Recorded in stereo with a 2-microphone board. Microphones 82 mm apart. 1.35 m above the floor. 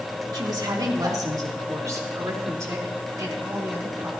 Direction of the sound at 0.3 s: 60° right (ahead or behind).